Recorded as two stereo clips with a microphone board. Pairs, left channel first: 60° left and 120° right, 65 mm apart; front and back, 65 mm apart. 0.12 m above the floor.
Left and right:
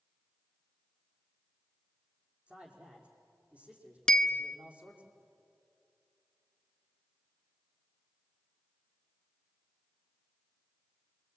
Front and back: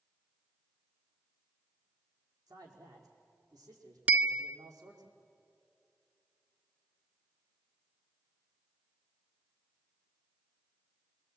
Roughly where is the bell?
Behind left.